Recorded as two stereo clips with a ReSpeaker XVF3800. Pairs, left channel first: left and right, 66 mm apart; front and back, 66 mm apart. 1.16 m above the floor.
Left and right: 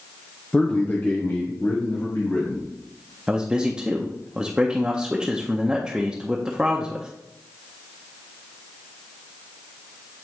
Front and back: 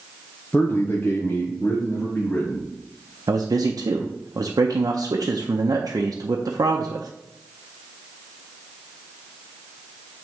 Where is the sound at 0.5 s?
25° left, 0.7 m; by 2.7 s 50° left, 1.8 m.